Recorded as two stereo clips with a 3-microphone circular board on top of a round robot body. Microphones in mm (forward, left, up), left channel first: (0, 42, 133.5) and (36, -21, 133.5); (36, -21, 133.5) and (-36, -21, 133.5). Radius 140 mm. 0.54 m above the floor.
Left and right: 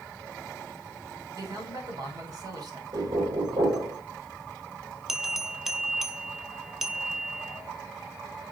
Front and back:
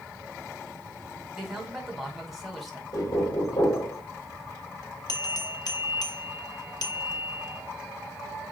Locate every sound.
1.3 s a man speaking: 90° right, 2 m
2.9 s knocking: 35° right, 2 m
5.1 s a bell: 20° left, 1.0 m